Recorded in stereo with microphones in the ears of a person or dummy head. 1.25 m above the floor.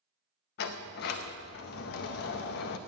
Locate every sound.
0.6 s a sliding door: 55° left (ahead or behind), 0.8 m